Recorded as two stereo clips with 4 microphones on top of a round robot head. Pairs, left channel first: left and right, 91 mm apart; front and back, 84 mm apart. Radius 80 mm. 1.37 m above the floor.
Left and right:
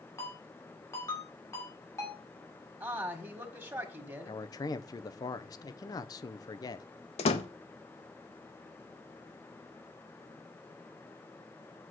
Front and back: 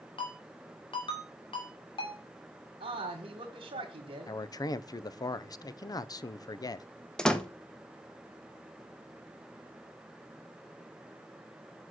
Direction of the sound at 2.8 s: 155° right.